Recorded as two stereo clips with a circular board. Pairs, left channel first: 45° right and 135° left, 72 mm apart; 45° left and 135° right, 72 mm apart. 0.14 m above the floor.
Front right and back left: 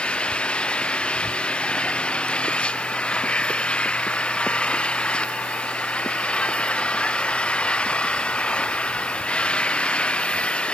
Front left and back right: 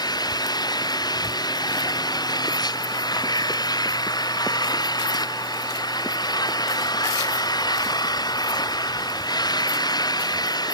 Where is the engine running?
30° left.